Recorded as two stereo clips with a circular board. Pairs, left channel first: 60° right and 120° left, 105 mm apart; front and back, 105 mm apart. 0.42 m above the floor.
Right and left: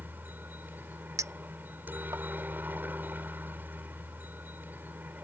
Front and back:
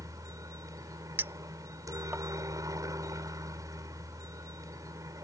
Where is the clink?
130° left.